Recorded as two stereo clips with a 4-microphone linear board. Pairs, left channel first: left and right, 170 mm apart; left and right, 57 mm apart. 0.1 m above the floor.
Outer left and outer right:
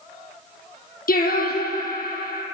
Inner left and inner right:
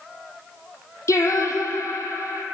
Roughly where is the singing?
Left.